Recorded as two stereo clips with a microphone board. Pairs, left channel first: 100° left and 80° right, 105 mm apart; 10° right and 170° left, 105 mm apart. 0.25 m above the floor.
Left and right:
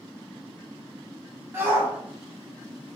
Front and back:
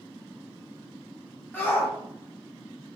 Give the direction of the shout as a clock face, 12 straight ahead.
2 o'clock.